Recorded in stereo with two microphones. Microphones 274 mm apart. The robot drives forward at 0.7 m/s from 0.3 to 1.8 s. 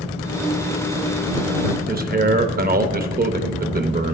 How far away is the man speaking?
About 0.6 m.